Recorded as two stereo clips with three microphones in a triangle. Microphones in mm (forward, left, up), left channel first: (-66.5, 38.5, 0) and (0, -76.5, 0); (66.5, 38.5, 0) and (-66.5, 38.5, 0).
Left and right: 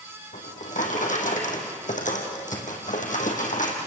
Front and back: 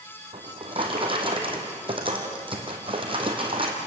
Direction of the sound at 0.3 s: 130° left.